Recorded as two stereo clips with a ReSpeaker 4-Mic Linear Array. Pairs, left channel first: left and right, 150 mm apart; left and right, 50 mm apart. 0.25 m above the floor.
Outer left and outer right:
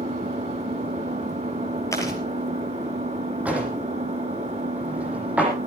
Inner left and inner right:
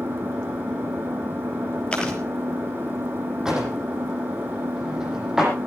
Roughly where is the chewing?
Centre.